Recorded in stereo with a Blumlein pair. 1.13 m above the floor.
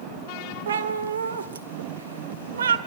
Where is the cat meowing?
65° right, 1.4 m.